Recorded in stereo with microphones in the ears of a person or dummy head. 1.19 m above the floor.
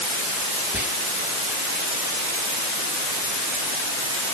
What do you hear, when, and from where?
0.7 s whispering: 5° right (ahead or behind), 2.0 m